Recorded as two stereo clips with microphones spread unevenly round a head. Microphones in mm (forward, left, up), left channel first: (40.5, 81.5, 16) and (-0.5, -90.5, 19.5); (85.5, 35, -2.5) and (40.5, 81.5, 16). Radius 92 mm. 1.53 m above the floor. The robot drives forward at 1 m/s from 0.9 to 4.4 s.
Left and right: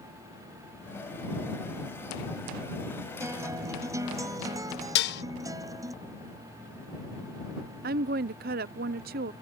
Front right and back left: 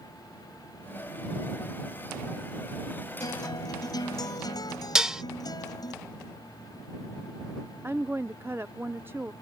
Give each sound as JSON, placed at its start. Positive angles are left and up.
{"t": 3.2, "sound": "a guitar", "azimuth_deg": -30}
{"t": 5.0, "sound": "dishes clattering", "azimuth_deg": 65}
{"t": 7.8, "sound": "a woman speaking", "azimuth_deg": -145}